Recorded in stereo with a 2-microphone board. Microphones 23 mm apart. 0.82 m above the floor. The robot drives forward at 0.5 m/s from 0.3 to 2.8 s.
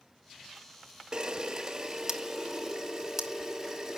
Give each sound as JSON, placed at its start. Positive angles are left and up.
{"t": 1.1, "sound": "a camera shutter", "side_deg": -30, "distance_m": 0.7}